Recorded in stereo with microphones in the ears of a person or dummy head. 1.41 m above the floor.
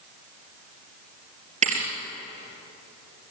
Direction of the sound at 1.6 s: 35° right (ahead or behind).